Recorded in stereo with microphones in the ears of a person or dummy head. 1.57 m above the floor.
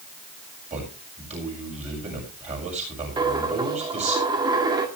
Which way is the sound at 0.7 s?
35° right (ahead or behind).